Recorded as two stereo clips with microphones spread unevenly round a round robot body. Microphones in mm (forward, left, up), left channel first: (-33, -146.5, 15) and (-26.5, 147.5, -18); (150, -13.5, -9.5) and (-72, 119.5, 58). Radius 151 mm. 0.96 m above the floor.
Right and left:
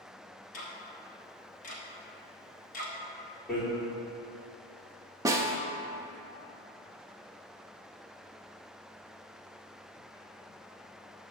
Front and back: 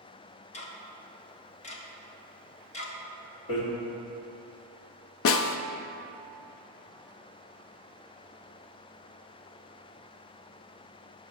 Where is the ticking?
30° right, 1.0 m.